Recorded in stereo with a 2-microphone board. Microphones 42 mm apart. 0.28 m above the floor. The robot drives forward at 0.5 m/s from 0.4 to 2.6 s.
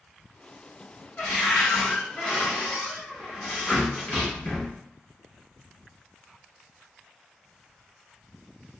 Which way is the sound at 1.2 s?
40° left (ahead or behind).